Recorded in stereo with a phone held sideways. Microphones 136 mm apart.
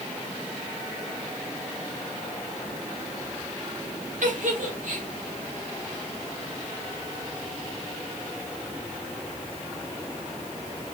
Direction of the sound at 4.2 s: 70° right (ahead or behind).